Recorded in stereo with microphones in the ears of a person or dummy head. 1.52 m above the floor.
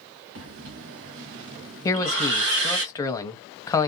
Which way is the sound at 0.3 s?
75° right (ahead or behind).